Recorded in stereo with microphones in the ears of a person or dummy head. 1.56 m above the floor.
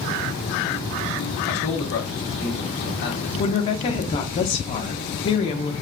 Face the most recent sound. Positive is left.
turn(degrees=30)  # may be behind; listen again after turning